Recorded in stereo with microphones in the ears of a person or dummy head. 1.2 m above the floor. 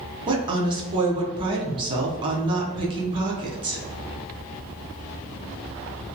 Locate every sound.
0.3 s a woman speaking: 25° right (ahead or behind), 0.6 m